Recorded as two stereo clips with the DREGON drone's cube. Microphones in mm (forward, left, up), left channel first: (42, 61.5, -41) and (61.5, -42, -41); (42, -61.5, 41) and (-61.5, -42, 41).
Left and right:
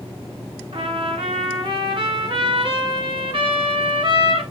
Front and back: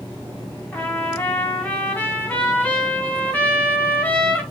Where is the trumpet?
85° right, 2.5 m.